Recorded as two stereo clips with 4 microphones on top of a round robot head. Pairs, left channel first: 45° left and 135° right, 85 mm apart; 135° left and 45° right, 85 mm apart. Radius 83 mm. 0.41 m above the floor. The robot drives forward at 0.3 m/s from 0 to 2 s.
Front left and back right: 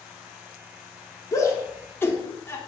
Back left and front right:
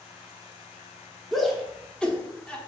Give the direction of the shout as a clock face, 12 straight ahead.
10 o'clock.